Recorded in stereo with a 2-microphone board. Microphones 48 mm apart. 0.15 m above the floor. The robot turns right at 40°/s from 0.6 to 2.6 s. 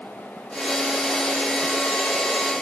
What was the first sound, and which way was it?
Only background noise.